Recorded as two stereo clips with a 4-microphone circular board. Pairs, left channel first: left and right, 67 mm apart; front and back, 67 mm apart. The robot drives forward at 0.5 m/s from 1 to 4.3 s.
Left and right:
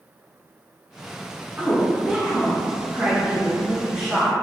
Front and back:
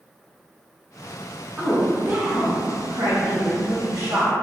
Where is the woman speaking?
130° right, 0.7 m; by 4.3 s 170° right, 1.7 m.